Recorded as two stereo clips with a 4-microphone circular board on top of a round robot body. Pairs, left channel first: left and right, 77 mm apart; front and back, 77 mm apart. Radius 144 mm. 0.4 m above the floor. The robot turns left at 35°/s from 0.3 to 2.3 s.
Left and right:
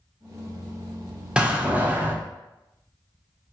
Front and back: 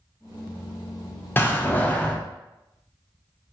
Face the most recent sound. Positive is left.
turn(degrees=-60)